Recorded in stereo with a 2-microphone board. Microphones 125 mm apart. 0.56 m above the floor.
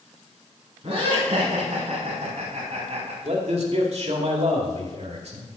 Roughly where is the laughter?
Right.